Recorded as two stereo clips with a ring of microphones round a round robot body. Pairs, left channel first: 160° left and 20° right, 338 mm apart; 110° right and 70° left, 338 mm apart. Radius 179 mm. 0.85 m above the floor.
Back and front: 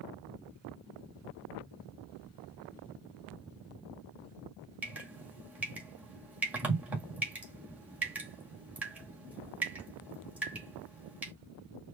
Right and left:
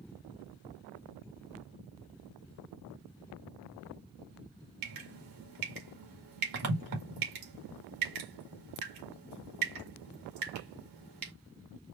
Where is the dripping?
65° left, 2 m.